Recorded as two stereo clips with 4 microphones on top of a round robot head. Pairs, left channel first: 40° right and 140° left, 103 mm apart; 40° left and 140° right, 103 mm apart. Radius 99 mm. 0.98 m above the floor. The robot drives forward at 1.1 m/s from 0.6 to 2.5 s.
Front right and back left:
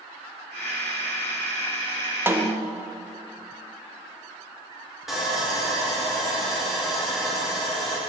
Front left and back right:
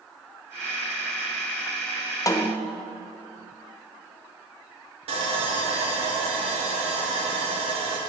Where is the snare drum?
80° left, 0.7 m; by 2.7 s 110° left, 0.7 m.